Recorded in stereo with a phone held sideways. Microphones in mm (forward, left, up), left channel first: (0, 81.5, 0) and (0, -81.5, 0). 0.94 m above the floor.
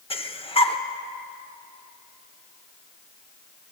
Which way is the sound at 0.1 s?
35° left (ahead or behind).